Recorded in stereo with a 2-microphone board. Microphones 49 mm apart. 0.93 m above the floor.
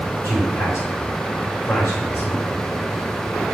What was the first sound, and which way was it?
A man speaking, 75° left (ahead or behind).